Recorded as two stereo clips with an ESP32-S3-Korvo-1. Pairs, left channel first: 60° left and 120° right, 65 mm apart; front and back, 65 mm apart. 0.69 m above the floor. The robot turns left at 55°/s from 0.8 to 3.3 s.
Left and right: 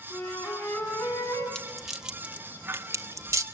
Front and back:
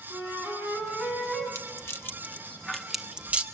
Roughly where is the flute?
Behind left.